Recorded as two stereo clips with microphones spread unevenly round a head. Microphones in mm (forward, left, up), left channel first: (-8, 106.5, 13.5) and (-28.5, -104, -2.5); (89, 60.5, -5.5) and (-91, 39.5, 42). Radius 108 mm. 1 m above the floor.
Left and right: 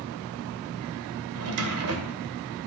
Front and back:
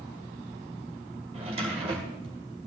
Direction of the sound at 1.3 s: 110° right.